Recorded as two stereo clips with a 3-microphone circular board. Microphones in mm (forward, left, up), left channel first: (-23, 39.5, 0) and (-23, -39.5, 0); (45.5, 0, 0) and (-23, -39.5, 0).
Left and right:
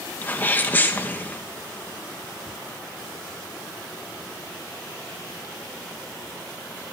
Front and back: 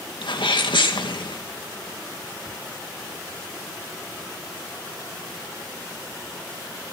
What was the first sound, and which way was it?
A sneeze, 20° left.